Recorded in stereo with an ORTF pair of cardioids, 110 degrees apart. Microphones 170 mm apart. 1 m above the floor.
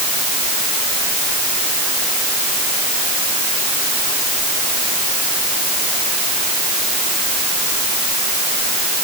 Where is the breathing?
I don't hear breathing.